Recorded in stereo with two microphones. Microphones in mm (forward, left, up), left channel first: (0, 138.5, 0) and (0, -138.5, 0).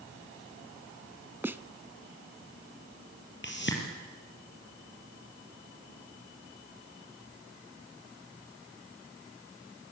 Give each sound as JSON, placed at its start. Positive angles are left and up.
{"t": 1.4, "sound": "a snare drum", "side_deg": -10, "distance_m": 0.7}
{"t": 3.4, "sound": "a whoosh", "side_deg": 40, "distance_m": 5.0}